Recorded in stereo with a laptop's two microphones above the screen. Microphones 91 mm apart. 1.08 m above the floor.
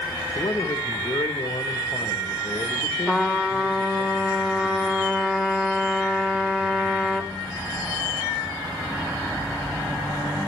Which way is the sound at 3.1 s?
10° right (ahead or behind).